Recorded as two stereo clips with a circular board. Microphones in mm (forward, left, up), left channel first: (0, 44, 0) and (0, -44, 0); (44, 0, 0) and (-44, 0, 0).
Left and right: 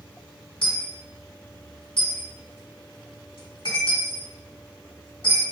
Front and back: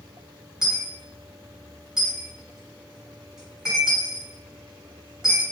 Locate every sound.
0.6 s a dropped coin: 100° left, 1.5 m